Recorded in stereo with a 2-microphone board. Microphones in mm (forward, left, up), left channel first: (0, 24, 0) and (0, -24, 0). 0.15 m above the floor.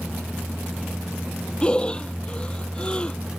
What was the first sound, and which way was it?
Breathing, 20° left (ahead or behind).